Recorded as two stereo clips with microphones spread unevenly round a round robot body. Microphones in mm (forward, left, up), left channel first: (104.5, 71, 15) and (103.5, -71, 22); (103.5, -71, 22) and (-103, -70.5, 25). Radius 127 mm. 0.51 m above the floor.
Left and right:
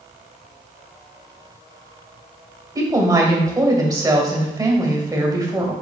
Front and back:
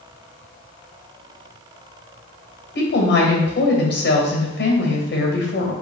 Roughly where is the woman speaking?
Ahead right.